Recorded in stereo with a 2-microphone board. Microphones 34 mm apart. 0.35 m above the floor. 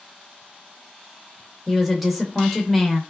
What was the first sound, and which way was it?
A woman speaking, centre (ahead or behind).